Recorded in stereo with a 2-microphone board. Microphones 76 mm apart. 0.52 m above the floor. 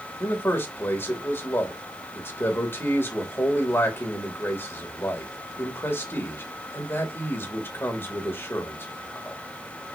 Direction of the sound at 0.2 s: 35° left (ahead or behind).